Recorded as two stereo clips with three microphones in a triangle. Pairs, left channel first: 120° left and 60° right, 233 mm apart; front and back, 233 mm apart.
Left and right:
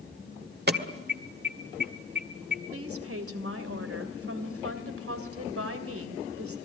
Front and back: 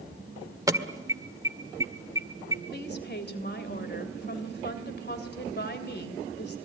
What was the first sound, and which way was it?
An alarm, 105° right.